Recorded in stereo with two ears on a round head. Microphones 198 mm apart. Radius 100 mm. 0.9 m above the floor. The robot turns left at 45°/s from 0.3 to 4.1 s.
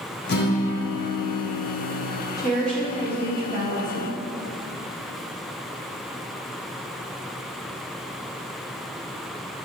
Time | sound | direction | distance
0.3 | a guitar | 65° left | 1.0 m
2.4 | a woman speaking | 20° left | 1.7 m